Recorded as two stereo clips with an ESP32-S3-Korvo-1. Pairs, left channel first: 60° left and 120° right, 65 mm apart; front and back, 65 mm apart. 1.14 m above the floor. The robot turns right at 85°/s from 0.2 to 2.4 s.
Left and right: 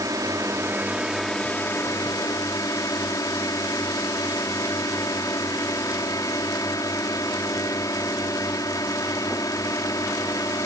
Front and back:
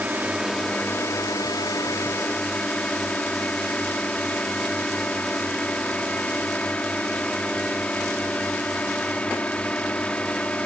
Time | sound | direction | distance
0.0 | a drone | 115° right | ?